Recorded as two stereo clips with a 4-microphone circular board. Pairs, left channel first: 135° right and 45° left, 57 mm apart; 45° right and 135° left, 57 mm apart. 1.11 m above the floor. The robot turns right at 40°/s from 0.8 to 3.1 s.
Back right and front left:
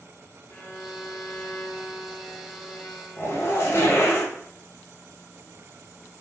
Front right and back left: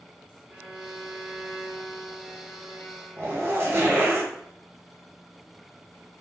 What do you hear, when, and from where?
0.5 s a violin: 170° right, 0.7 m; by 4.2 s 80° right, 0.7 m
3.2 s a zipper: straight behind, 0.6 m